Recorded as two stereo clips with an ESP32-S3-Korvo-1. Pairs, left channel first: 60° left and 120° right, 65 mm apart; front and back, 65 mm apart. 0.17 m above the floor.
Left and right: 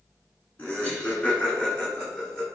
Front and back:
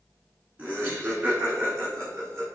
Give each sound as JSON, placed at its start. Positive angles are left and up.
{"t": 0.6, "sound": "laughter", "azimuth_deg": 120, "distance_m": 1.7}